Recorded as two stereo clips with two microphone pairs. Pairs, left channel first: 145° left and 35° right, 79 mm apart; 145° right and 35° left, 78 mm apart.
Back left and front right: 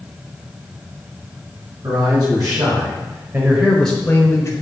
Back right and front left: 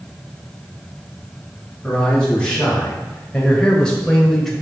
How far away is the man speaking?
About 3.5 m.